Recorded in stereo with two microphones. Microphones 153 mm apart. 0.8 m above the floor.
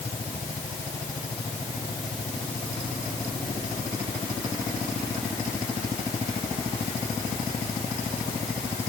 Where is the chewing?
No chewing in this recording.